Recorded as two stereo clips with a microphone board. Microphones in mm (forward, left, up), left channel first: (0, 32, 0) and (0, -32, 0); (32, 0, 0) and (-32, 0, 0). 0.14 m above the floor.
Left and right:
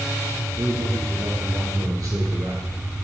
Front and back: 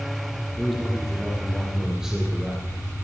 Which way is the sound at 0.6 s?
95° right.